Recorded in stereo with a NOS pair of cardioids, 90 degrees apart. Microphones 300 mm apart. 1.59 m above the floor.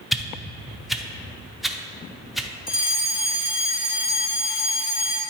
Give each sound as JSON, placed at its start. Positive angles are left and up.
{"t": 0.1, "sound": "a whoosh", "azimuth_deg": 0, "distance_m": 0.6}
{"t": 2.7, "sound": "a fire alarm", "azimuth_deg": 20, "distance_m": 2.0}